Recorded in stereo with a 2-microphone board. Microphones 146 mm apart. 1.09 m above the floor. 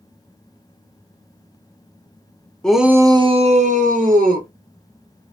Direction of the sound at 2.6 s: 5° left (ahead or behind).